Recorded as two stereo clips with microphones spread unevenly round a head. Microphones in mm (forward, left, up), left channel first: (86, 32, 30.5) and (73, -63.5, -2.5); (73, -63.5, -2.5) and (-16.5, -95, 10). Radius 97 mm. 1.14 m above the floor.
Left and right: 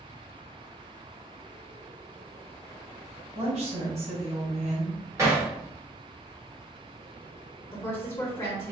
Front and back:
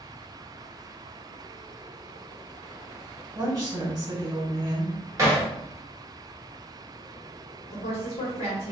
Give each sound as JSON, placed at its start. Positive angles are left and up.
{"t": 3.4, "sound": "a woman speaking", "azimuth_deg": -110, "distance_m": 1.7}
{"t": 5.2, "sound": "hammering", "azimuth_deg": 180, "distance_m": 0.8}
{"t": 7.7, "sound": "a woman speaking", "azimuth_deg": 20, "distance_m": 1.0}